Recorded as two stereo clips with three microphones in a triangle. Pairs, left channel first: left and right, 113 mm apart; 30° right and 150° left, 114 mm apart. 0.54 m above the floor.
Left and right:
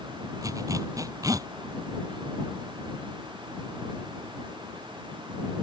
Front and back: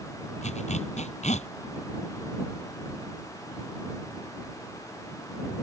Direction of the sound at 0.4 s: 30° right.